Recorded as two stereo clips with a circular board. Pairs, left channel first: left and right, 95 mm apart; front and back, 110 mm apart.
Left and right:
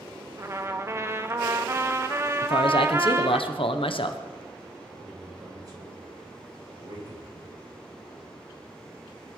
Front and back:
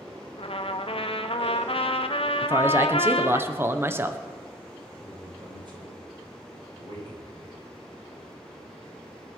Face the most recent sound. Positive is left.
turn(degrees=-135)